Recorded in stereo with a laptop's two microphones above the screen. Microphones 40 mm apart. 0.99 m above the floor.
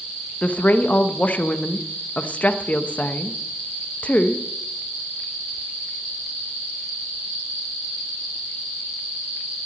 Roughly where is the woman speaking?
Left.